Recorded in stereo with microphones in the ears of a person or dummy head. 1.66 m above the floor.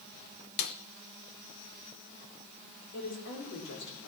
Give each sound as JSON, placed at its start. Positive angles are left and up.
{"t": 0.6, "sound": "a snare drum", "side_deg": 55, "distance_m": 1.0}
{"t": 2.9, "sound": "a woman speaking", "side_deg": 65, "distance_m": 4.5}